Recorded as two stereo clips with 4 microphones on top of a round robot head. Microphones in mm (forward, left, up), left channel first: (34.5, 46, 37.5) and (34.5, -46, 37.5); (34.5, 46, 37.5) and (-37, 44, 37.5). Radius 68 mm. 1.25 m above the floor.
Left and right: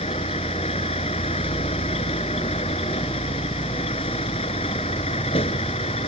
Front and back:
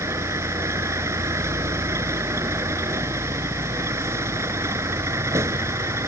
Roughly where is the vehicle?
Behind left.